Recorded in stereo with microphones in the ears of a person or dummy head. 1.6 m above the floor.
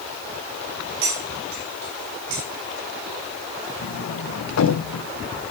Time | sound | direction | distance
1.0 | cutlery clinking | 65° right (ahead or behind) | 5 m
3.8 | a sliding door | 65° left (ahead or behind) | 0.9 m